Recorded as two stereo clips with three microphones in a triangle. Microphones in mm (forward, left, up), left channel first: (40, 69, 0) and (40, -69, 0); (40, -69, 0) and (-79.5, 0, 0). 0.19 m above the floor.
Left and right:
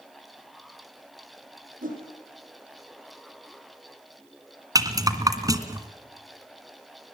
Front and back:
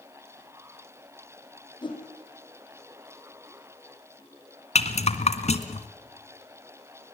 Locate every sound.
1.8 s a whoosh: 85° right, 5.5 m
4.8 s a rattle: 30° right, 1.9 m